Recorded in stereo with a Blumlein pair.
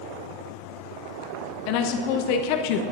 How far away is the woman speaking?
About 0.9 m.